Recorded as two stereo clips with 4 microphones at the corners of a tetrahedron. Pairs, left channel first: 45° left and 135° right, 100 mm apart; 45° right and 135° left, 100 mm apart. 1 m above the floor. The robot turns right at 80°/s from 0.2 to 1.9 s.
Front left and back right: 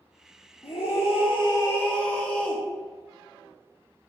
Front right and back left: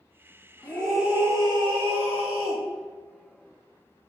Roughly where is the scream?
Ahead.